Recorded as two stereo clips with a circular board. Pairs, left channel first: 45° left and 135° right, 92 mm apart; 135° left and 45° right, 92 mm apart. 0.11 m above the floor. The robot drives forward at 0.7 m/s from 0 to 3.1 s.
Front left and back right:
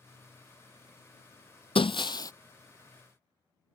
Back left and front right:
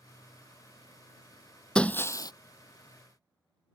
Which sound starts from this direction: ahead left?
Breaking glass, at 1.8 s.